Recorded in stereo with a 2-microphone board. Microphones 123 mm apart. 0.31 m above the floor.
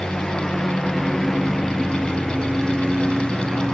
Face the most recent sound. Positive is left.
turn(degrees=0)  # may be behind; listen again after turning